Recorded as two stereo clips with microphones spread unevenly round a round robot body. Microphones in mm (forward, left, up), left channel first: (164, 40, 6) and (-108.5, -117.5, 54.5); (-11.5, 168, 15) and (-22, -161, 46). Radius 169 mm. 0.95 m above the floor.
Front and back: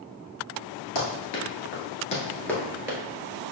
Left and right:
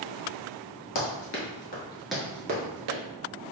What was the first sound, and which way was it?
Running footsteps, 70° left.